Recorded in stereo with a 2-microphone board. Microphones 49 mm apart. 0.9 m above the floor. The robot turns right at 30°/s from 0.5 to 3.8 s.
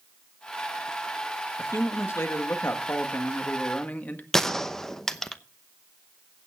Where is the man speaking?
75° left, 1.6 m; by 4.2 s 145° left, 1.6 m.